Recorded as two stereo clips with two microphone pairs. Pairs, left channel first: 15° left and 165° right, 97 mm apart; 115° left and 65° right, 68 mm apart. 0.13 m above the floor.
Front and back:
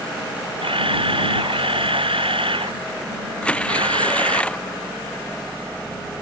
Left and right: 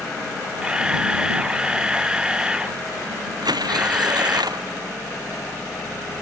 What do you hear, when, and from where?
0.6 s a camera shutter: 140° right
3.4 s tearing paper: 65° right